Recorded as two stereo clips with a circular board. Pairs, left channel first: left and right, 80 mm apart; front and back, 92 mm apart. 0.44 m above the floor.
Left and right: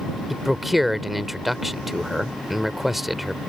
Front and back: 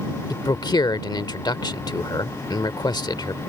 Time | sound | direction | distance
0.3 | a man speaking | straight ahead | ?